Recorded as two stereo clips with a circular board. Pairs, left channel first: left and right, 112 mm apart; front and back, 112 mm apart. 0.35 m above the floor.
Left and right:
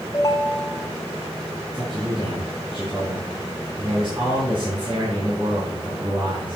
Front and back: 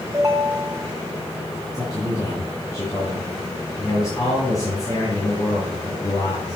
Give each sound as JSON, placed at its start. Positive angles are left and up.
{"t": 0.1, "sound": "a ringtone", "azimuth_deg": 135, "distance_m": 1.1}
{"t": 1.7, "sound": "a man speaking", "azimuth_deg": -55, "distance_m": 3.0}